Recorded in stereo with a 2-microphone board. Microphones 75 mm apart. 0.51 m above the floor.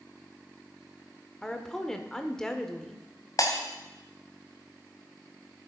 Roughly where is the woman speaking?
Centre.